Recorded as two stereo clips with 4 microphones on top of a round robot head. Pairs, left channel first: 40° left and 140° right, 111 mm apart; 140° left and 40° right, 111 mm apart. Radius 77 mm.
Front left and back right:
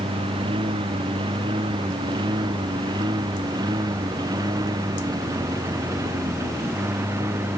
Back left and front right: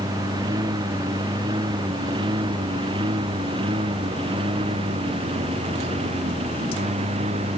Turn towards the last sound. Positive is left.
turn(degrees=-75)